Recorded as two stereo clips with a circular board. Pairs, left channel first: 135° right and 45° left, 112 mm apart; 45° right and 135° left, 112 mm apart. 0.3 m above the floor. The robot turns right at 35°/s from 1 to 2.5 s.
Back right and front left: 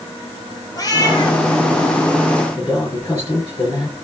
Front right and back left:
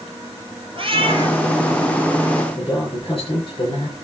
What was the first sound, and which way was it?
A cat meowing, 170° left.